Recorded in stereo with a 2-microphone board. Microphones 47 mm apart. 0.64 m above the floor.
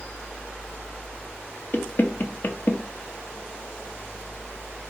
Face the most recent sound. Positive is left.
turn(degrees=45)  # may be behind; listen again after turning